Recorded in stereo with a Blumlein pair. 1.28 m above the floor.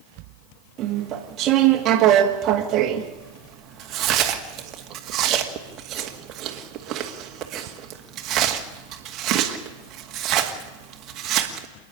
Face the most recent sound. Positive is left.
turn(degrees=-30)